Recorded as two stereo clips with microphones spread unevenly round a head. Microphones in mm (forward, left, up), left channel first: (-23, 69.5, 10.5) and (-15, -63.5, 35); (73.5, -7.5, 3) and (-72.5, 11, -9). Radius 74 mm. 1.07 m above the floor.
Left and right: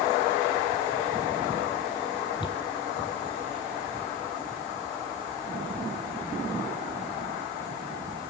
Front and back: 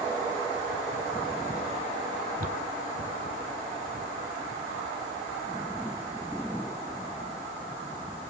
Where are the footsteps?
150° left, 1.7 m; by 5.5 s 95° left, 2.5 m.